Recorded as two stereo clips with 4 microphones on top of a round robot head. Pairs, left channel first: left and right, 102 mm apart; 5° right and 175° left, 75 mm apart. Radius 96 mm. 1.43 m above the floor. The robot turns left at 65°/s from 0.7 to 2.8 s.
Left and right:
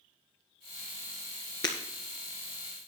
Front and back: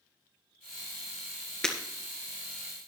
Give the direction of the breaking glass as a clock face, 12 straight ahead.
10 o'clock.